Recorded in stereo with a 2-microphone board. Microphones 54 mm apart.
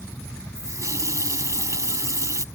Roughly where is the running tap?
Right.